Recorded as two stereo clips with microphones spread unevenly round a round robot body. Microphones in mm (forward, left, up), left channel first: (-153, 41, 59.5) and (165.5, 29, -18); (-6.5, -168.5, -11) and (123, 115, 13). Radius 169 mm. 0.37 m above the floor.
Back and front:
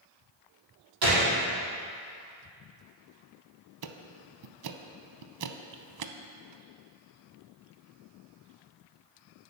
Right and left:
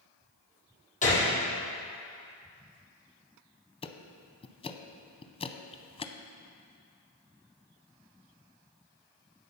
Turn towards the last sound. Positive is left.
turn(degrees=-40)